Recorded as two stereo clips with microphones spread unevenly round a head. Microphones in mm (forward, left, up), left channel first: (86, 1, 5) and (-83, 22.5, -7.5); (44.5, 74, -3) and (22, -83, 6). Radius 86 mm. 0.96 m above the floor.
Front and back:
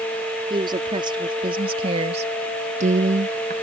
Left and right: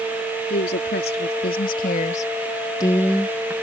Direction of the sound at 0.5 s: 110° left.